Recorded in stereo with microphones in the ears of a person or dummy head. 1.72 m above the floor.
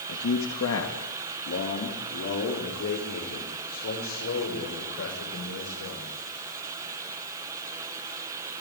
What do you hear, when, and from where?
0.1 s a man speaking: 75° left (ahead or behind), 2.5 m; by 6.1 s 65° left (ahead or behind), 9 m